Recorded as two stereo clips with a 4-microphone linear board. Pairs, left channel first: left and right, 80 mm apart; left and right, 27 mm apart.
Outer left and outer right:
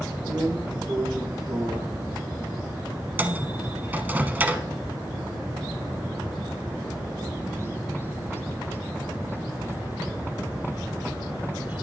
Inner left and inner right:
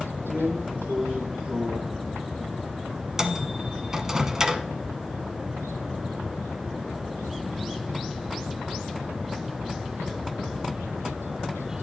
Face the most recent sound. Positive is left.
turn(degrees=-20)  # may be behind; listen again after turning